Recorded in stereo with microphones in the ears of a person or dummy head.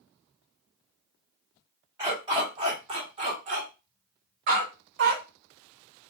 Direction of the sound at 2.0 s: 20° right (ahead or behind).